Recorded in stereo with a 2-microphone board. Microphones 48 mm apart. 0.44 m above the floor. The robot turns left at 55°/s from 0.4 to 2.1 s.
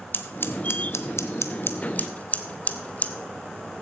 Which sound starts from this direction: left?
Scissors, at 0.1 s.